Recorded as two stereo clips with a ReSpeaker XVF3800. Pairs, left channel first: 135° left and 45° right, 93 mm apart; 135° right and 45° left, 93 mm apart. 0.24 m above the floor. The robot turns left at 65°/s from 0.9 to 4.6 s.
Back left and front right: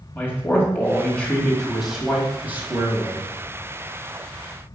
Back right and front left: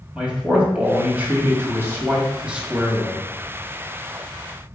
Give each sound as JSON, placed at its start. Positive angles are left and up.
{"t": 0.1, "sound": "a man speaking", "azimuth_deg": 100, "distance_m": 1.7}